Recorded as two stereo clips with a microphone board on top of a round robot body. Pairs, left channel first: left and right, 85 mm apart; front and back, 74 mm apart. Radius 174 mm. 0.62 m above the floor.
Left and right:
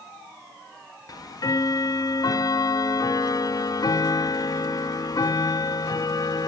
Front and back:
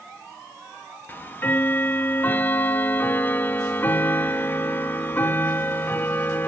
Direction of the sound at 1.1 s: 55° left.